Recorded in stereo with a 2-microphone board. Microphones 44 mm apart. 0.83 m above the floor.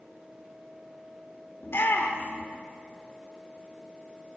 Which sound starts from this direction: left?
A shout, at 1.6 s.